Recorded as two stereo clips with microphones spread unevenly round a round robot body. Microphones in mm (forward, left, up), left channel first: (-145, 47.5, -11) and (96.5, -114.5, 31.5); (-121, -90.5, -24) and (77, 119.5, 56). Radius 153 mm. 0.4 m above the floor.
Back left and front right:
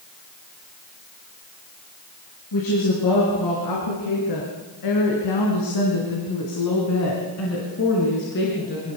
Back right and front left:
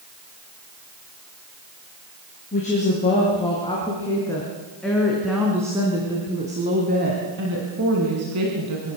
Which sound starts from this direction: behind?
A woman speaking, at 2.5 s.